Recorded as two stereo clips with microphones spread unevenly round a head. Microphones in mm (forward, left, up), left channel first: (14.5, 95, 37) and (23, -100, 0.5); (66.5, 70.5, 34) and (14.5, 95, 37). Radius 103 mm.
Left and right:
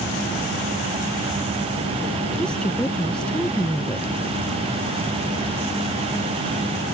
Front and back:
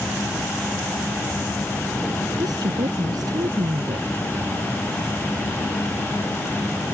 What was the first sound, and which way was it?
A woman speaking, 175° left.